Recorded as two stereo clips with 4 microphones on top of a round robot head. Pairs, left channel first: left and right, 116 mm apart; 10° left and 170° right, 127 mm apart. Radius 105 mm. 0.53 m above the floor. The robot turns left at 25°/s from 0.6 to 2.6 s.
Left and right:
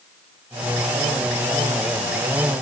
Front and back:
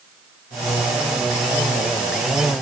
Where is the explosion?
I don't hear an explosion.